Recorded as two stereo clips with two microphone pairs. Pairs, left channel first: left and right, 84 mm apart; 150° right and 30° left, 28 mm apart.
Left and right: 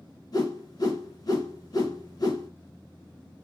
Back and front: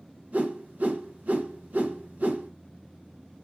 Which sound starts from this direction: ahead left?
A whoosh, at 0.3 s.